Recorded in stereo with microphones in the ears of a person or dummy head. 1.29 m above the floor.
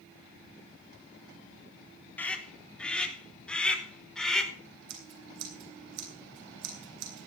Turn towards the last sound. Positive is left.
turn(degrees=-65)  # may be behind; listen again after turning